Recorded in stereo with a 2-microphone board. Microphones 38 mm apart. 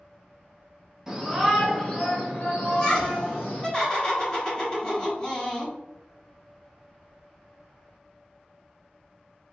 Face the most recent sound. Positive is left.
turn(degrees=20)  # may be behind; listen again after turning